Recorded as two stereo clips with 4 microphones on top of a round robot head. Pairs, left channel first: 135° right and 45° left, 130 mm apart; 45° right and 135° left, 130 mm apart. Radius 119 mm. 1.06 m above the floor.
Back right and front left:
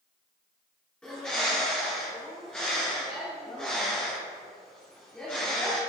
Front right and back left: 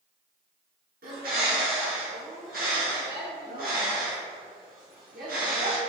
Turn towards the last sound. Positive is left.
turn(degrees=140)